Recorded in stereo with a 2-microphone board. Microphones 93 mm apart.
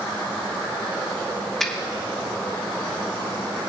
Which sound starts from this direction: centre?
A finger snap, at 1.6 s.